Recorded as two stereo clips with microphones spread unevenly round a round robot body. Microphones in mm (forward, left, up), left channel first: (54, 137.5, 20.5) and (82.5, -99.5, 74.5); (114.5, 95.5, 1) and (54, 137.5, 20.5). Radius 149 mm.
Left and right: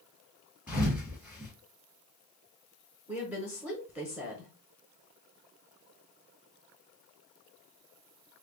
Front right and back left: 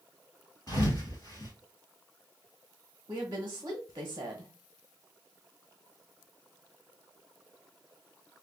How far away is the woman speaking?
About 0.9 m.